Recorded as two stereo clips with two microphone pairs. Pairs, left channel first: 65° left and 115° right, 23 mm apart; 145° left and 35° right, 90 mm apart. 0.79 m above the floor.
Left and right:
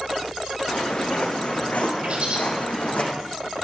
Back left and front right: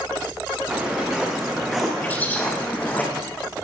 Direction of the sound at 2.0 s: 145° right.